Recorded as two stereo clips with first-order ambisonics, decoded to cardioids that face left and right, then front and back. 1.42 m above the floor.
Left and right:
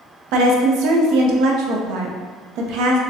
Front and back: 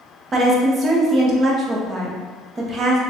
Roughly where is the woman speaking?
Behind right.